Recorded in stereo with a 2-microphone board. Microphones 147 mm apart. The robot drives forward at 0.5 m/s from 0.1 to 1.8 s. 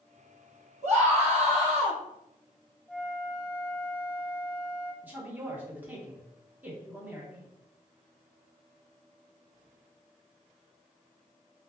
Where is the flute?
10° right (ahead or behind), 0.6 m.